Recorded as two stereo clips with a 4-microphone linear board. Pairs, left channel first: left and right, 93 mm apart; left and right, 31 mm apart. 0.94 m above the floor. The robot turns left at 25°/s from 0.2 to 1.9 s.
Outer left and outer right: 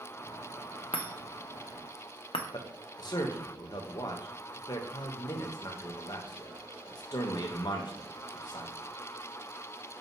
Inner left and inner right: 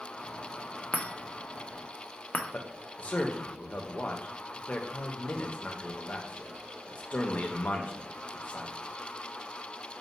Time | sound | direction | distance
0.9 | a chime | 70° left (ahead or behind) | 0.5 m
2.5 | a man speaking | 50° left (ahead or behind) | 0.6 m